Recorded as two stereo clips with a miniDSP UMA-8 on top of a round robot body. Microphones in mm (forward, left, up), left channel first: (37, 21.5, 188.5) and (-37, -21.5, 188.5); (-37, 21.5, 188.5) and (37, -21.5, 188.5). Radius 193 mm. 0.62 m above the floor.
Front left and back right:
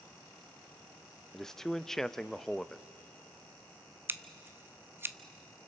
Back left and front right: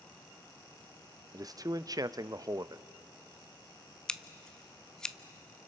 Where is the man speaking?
55° right, 0.7 m.